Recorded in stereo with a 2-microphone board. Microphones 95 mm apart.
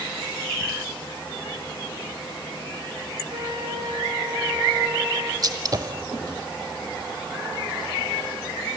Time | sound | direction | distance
3.3 | a flute | 65° right (ahead or behind) | 7.5 m
5.4 | a gunshot | 45° right (ahead or behind) | 1.1 m